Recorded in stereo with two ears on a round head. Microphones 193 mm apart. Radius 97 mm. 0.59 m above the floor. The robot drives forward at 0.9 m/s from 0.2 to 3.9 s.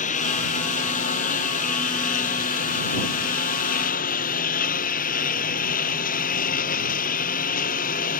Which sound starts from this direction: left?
A lawn mower, at 0.0 s.